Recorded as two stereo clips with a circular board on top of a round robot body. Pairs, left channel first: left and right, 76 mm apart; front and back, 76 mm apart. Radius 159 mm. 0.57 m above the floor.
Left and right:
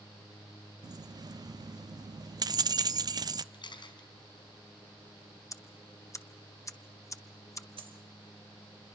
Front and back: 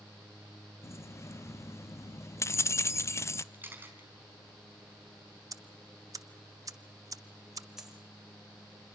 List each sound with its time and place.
0.8 s keys jangling: 55° right, 0.8 m
3.5 s a camera shutter: 110° left, 5 m
5.5 s ticking: 140° left, 1.5 m
7.8 s a dropped coin: 95° right, 3 m